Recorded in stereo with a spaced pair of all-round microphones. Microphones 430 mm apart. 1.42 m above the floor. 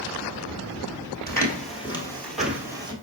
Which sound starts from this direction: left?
Footsteps, at 1.3 s.